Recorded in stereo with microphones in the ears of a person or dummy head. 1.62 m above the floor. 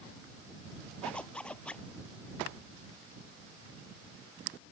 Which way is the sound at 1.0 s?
5° left (ahead or behind).